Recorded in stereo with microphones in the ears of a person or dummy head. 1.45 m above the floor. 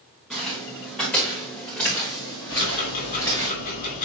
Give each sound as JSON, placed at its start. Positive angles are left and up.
{"t": 0.3, "sound": "footsteps", "side_deg": 5, "distance_m": 5.5}
{"t": 2.5, "sound": "ticking", "side_deg": 55, "distance_m": 3.0}